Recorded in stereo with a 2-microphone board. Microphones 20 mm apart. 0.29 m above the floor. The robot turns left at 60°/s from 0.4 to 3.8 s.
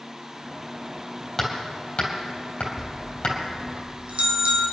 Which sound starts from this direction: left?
Hammering, at 1.4 s.